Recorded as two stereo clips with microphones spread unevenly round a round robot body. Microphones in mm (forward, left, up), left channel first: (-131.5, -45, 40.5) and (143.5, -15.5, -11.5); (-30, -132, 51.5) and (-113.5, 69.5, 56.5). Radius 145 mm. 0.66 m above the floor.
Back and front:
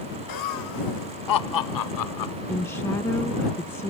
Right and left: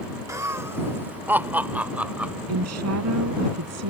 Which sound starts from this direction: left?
A woman speaking, at 2.5 s.